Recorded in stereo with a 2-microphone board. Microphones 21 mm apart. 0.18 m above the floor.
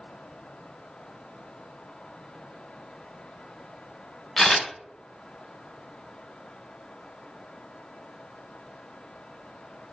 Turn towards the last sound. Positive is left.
turn(degrees=15)  # may be behind; listen again after turning